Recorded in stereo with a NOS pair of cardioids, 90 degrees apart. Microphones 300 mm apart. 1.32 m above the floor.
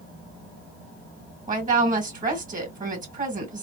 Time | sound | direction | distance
1.5 | a woman speaking | 25° right | 2 m